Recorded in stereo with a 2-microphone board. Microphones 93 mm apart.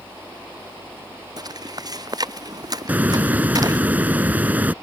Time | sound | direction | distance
1.4 | footsteps | 45° right (ahead or behind) | ?
2.9 | a hiss | 15° right (ahead or behind) | ?